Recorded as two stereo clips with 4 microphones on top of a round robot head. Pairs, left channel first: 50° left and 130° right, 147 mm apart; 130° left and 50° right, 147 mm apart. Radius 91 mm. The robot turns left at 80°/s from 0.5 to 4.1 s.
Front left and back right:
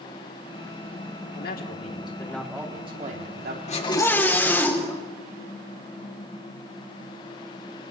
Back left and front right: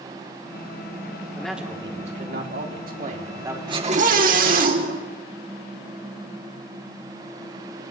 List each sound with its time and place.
1.4 s a man speaking: 50° left, 3.5 m; by 3.6 s 130° right, 3.5 m
3.7 s a scream: 10° left, 3.5 m; by 5.0 s 25° right, 3.5 m